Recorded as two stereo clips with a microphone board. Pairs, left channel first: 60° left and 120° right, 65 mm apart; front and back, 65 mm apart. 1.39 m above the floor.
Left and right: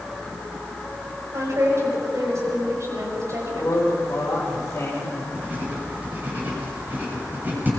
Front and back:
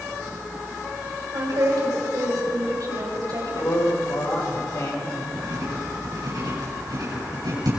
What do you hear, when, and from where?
1.3 s a woman speaking: 160° right, 6 m
3.5 s a man speaking: 10° left, 5 m
5.3 s writing: straight behind, 7.5 m